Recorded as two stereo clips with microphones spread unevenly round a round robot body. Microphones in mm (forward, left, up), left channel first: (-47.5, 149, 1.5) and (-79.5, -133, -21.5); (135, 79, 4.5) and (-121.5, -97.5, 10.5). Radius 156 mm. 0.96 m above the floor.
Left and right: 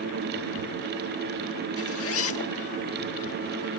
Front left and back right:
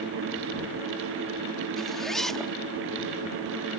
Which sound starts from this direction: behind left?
A zipper, at 1.8 s.